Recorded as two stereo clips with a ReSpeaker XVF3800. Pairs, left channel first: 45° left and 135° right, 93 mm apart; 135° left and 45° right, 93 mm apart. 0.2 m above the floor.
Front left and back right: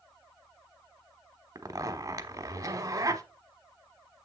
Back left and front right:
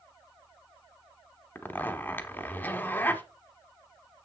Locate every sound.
1.6 s a zipper: 165° right, 0.9 m